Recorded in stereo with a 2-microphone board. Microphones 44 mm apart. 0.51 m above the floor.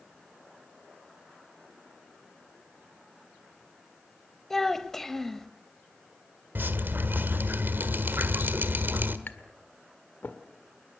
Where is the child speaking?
10° left (ahead or behind), 1.3 m.